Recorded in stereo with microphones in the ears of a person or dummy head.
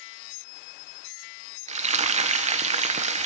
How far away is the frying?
About 0.5 m.